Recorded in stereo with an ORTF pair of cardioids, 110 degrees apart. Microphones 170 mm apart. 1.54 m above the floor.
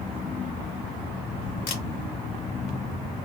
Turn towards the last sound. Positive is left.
turn(degrees=60)